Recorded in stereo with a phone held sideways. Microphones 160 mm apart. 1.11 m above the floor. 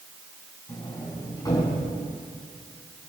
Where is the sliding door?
25° left (ahead or behind), 5.5 m.